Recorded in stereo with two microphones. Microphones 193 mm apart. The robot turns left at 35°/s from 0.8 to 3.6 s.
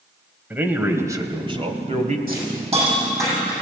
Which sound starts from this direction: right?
A hiss, at 2.3 s.